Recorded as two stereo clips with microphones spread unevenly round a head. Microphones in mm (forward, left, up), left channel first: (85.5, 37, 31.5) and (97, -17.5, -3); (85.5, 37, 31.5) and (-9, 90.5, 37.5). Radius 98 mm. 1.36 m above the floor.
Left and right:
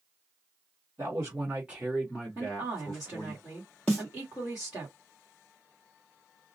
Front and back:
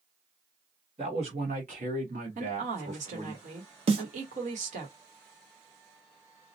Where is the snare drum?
165° right, 0.7 m.